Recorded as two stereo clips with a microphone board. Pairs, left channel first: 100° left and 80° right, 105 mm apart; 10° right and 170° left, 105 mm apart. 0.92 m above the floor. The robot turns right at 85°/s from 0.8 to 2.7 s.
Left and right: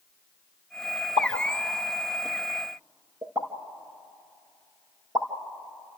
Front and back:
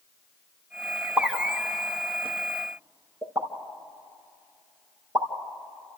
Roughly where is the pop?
Left.